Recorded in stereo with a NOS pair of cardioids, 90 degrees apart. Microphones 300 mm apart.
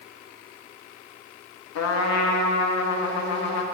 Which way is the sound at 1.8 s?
65° left.